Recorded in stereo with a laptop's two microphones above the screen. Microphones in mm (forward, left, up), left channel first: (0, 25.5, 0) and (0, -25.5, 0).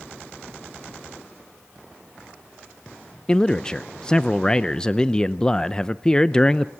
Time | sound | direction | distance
3.3 | a man speaking | 15° left (ahead or behind) | 0.5 m